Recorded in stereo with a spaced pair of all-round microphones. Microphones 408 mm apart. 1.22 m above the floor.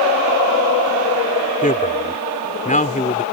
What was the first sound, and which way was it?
A man speaking, 20° left (ahead or behind).